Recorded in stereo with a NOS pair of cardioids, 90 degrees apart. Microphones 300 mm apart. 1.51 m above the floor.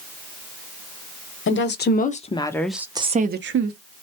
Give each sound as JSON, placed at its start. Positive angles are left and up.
{"t": 1.5, "sound": "a woman speaking", "azimuth_deg": 40, "distance_m": 1.0}